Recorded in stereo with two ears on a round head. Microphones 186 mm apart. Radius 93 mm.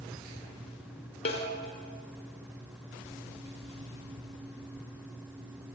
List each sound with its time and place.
1.2 s a snare drum: 30° left (ahead or behind), 4 m